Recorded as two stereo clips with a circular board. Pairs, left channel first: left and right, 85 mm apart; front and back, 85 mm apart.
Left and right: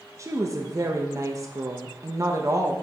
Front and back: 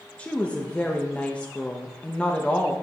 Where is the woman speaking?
65° right, 0.8 m.